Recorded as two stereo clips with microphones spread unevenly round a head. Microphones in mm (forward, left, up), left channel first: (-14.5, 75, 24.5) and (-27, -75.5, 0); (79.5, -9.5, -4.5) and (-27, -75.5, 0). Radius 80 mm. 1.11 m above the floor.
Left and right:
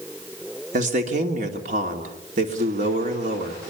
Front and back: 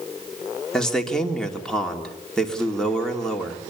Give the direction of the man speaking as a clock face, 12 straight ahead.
2 o'clock.